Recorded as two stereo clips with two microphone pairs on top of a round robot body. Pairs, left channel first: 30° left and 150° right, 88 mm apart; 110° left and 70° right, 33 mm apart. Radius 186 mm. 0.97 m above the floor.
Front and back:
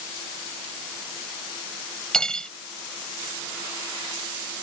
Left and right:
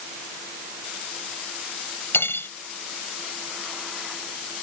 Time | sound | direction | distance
2.1 | cutlery clinking | 115° left | ?